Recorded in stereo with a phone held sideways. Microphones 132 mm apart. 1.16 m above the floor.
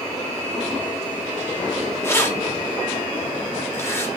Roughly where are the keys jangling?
Centre.